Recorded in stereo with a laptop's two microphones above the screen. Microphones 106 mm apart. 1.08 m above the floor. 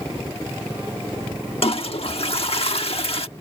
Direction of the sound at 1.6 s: 65° left (ahead or behind).